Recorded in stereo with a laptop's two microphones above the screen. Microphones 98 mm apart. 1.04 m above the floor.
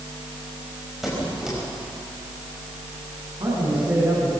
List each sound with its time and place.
1.0 s a squeak: 5° right (ahead or behind), 4.5 m
3.4 s a man speaking: 60° right (ahead or behind), 7.5 m